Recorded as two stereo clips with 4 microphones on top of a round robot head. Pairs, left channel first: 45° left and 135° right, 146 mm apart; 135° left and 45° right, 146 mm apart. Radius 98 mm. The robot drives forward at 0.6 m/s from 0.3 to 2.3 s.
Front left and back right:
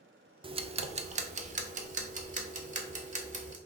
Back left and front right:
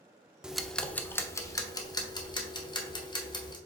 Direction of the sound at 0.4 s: 125° right.